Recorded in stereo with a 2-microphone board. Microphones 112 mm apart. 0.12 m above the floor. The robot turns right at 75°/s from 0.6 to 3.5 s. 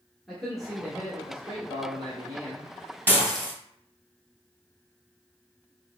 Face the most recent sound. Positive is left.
turn(degrees=10)